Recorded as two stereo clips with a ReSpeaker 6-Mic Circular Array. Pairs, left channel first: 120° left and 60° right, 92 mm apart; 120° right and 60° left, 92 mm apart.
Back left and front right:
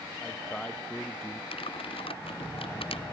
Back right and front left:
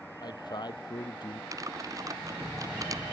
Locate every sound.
0.2 s a man speaking: 160° right
1.5 s typing on a keyboard: 115° left